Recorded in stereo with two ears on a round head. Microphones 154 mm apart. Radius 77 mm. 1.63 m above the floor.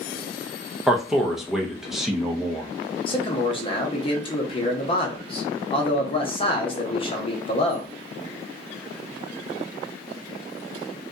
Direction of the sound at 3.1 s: 30° left (ahead or behind).